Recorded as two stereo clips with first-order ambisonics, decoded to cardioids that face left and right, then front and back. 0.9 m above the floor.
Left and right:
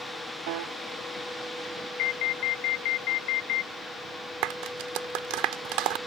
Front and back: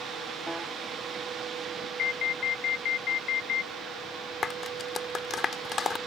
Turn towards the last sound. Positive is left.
turn(degrees=-65)